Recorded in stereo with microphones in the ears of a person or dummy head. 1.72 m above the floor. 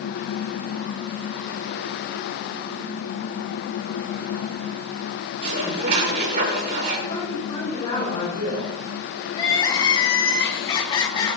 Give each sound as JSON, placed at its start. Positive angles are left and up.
{"t": 5.4, "sound": "dishes clattering", "side_deg": -55, "distance_m": 4.0}
{"t": 7.1, "sound": "a woman speaking", "side_deg": 30, "distance_m": 6.5}
{"t": 9.3, "sound": "crying", "side_deg": 25, "distance_m": 1.7}